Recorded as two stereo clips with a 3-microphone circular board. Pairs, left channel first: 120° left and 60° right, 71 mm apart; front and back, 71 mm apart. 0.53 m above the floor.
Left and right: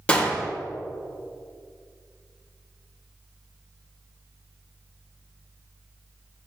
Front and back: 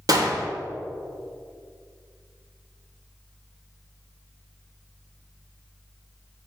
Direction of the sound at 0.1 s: 170° right.